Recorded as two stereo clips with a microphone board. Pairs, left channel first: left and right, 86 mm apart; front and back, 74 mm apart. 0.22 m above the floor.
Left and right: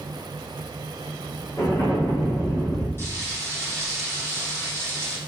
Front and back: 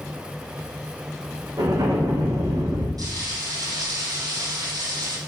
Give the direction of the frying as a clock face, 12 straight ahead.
7 o'clock.